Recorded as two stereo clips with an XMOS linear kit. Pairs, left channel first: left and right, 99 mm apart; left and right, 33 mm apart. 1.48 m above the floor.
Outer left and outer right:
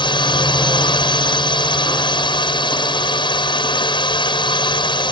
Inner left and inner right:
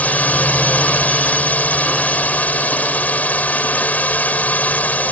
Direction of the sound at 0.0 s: 55° left (ahead or behind).